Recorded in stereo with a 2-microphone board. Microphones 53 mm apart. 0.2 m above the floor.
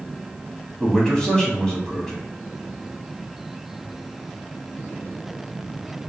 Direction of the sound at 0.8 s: 15° left (ahead or behind).